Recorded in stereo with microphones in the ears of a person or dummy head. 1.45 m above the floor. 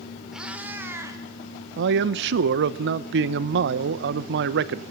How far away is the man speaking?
About 0.8 m.